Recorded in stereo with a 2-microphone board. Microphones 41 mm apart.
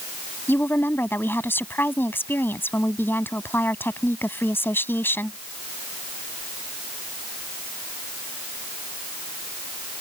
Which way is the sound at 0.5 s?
60° left (ahead or behind).